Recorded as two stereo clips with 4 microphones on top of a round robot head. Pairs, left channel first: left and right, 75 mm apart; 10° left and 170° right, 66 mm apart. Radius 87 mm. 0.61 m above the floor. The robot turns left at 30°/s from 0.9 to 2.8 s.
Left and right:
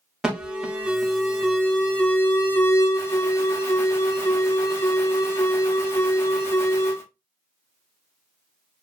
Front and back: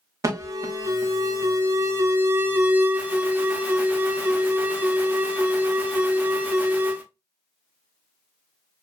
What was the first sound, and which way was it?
An alarm, 170° right.